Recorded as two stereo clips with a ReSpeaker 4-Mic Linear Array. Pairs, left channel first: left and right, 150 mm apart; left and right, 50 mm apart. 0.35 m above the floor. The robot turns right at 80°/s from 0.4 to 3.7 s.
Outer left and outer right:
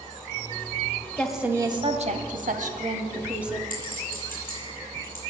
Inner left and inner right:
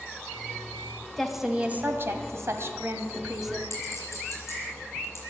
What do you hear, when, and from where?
1.2 s a woman speaking: 170° left, 1.7 m; by 3.6 s 5° left, 1.7 m
3.7 s a clink: 70° left (ahead or behind), 7 m